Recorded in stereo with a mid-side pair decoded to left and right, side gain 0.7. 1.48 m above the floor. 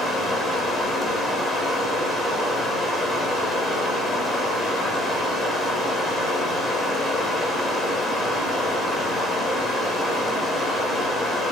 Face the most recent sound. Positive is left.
turn(degrees=15)